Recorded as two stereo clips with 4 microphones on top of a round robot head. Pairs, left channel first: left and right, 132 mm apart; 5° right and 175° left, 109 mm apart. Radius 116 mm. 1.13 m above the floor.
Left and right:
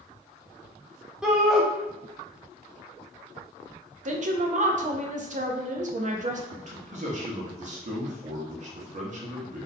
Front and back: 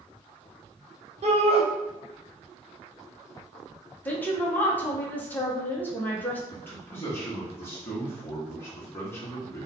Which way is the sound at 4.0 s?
80° right.